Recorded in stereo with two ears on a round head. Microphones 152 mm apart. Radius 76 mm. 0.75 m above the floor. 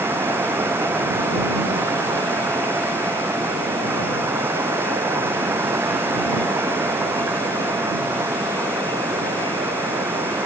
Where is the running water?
15° right (ahead or behind).